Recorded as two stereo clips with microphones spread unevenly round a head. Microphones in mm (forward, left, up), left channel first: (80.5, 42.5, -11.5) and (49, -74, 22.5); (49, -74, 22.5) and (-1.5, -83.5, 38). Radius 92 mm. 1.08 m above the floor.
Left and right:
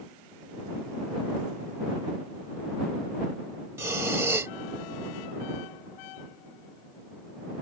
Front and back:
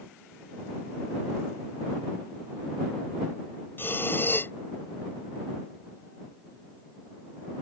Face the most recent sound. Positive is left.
turn(degrees=-40)